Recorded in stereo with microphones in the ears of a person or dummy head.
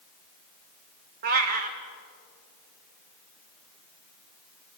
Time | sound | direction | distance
1.2 | a cat meowing | 40° right (ahead or behind) | 1.4 m